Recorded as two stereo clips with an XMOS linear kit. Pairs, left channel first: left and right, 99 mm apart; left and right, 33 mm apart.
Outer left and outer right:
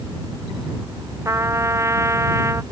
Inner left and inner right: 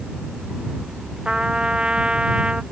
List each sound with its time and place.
1.2 s a trumpet: 30° right (ahead or behind)